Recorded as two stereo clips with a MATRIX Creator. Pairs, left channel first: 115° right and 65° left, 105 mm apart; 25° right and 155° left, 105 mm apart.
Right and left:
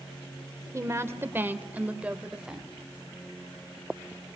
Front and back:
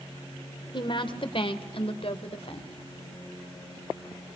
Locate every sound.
0.7 s a woman speaking: 10° left, 2 m; by 2.7 s 20° right, 2.5 m